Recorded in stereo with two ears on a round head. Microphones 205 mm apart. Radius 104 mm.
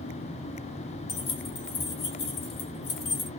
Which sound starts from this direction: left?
Keys jangling, at 1.1 s.